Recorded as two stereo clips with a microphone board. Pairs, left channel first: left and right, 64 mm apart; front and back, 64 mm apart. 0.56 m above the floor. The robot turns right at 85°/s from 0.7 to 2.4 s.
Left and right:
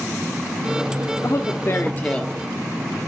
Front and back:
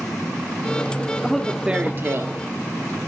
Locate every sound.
1.2 s a man speaking: 75° left, 0.9 m; by 2.3 s 170° left, 0.9 m